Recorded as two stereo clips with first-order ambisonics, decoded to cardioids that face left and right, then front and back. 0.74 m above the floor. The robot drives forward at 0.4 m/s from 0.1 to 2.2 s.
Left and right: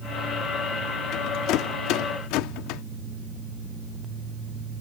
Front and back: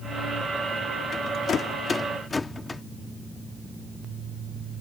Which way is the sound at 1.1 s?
55° left.